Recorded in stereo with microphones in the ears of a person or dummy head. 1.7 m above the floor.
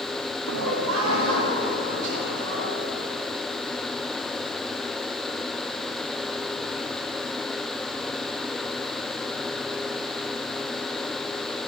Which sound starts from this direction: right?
Laughter, at 0.5 s.